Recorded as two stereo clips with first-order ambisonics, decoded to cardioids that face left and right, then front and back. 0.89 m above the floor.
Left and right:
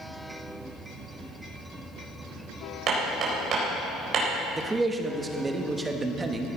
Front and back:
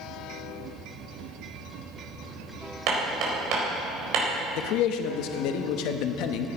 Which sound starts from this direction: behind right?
Hammering, at 2.9 s.